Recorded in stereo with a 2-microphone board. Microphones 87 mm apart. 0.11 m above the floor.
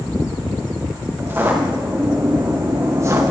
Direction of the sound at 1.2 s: 25° right (ahead or behind).